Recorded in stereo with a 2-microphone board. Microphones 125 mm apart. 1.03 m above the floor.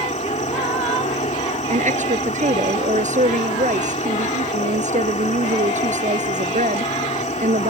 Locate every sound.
0.0 s an insect: 75° left (ahead or behind)
1.7 s a woman speaking: 80° right